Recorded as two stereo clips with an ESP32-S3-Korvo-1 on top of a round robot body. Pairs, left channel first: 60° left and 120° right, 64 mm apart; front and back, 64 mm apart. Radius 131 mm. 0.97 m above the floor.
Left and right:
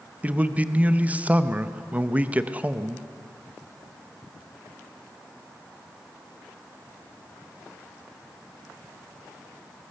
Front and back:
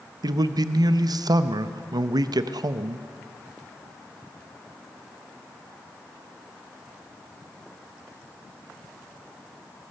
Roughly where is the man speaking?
Behind.